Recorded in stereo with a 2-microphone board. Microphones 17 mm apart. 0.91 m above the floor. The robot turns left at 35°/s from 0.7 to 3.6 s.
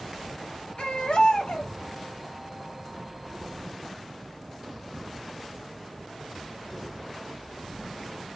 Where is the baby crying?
95° left, 0.9 m; by 1.7 s 60° left, 0.9 m.